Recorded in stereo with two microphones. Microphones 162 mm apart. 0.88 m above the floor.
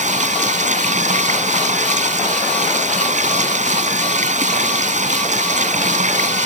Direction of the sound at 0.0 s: 50° right (ahead or behind).